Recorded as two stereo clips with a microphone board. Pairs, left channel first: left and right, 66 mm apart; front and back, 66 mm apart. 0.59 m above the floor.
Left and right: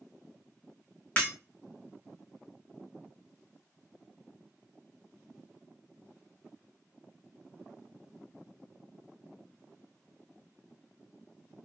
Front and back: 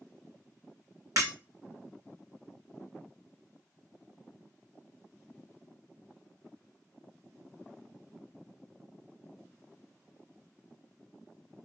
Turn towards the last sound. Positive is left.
turn(degrees=160)